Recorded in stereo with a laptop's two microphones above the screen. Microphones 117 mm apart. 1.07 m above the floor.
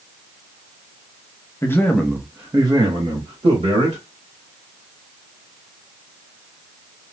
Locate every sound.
1.6 s a man speaking: 25° left (ahead or behind), 0.8 m; by 4.0 s 65° right (ahead or behind), 1.6 m